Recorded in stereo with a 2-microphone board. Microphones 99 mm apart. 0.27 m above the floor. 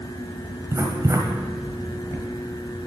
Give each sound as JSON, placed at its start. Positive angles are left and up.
{"t": 0.7, "sound": "writing", "side_deg": -35, "distance_m": 1.3}